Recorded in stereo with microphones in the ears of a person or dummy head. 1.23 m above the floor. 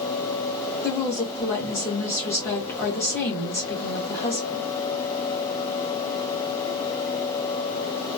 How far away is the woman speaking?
About 1.2 m.